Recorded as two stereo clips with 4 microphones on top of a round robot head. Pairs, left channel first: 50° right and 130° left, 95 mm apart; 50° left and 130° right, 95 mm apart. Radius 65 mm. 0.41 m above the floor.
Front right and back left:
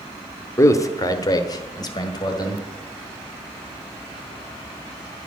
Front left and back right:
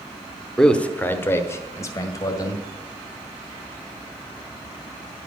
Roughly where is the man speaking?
Ahead right.